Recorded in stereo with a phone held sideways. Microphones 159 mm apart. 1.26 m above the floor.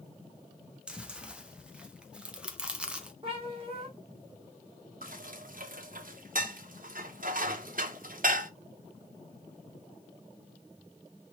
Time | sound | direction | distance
0.9 | chewing | 5° right (ahead or behind) | 0.5 m
3.2 | a cat meowing | 30° right (ahead or behind) | 1.5 m
5.0 | dishes clattering | 60° right (ahead or behind) | 0.5 m